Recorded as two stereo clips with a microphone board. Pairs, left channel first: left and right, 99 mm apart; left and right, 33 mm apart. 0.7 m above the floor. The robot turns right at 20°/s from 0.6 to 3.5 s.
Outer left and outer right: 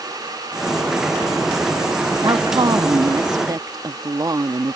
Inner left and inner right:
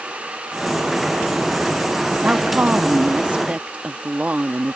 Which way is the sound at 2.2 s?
45° right (ahead or behind).